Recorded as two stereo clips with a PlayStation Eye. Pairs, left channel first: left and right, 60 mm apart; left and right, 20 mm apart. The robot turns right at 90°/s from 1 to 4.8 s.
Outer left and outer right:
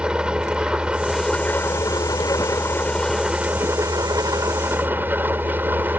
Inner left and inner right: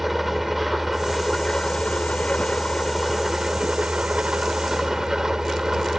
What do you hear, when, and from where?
0.0 s an engine running: 15° right; by 6.0 s 30° right